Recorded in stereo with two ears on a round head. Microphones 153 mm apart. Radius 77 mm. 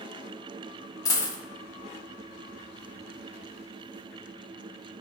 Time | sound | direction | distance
1.1 | a dropped coin | 20° left (ahead or behind) | 0.5 m